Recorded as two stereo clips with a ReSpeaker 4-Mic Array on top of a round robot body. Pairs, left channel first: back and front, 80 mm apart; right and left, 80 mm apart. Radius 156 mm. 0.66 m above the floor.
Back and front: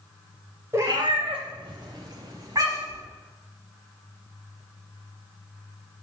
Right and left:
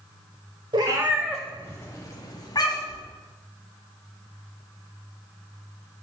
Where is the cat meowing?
60° left, 0.5 m; by 3.0 s 50° right, 1.5 m.